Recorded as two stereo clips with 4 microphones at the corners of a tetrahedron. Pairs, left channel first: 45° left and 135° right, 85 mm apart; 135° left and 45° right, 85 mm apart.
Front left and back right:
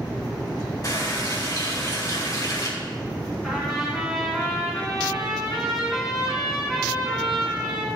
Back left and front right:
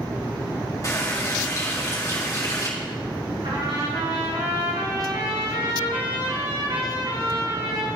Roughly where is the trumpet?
Ahead right.